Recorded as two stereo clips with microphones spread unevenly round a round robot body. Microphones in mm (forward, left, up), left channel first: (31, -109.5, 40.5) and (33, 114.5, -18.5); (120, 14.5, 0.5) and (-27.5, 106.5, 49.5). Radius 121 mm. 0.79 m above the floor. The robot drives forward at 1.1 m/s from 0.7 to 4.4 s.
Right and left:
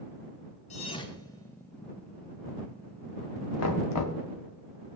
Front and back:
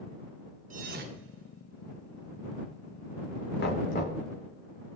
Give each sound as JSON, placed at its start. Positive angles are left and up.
{"t": 0.7, "sound": "a thud", "azimuth_deg": -150, "distance_m": 0.6}
{"t": 3.6, "sound": "knocking", "azimuth_deg": -70, "distance_m": 1.4}